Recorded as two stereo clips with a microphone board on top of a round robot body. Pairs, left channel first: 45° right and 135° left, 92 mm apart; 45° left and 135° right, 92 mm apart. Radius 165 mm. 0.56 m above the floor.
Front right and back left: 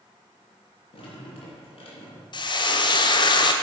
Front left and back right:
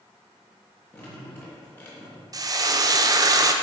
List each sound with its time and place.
0.9 s dripping: 20° right, 3 m
2.3 s frying: 85° right, 0.7 m